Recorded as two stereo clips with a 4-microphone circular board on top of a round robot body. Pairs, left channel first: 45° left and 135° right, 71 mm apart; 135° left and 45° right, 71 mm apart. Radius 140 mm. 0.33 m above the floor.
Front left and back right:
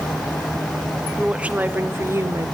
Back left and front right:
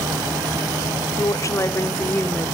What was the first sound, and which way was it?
A woman speaking, 150° left.